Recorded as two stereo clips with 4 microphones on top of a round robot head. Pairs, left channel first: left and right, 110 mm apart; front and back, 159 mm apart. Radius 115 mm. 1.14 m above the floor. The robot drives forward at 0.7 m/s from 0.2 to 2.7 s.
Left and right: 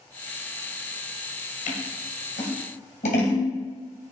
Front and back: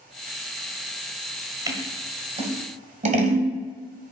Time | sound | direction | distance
1.7 | scissors | 115° left | 1.3 m